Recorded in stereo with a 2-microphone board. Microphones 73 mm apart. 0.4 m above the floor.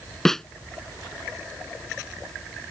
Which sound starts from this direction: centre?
A snare drum, at 0.2 s.